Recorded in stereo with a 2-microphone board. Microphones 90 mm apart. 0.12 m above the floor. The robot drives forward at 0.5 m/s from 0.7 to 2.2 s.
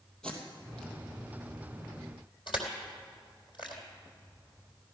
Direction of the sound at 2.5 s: 60° left (ahead or behind).